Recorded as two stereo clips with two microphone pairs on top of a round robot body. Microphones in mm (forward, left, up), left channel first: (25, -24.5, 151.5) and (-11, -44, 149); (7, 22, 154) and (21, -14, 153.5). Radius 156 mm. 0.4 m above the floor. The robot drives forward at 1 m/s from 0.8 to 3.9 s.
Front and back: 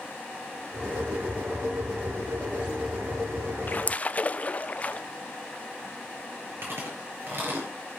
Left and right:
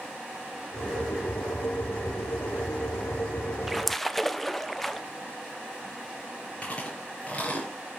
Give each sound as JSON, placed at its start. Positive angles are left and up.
{"t": 3.7, "sound": "a splash", "azimuth_deg": 20, "distance_m": 1.1}
{"t": 6.6, "sound": "chewing", "azimuth_deg": 175, "distance_m": 5.0}